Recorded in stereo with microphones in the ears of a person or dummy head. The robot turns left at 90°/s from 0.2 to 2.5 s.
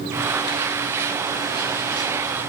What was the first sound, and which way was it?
Only background noise.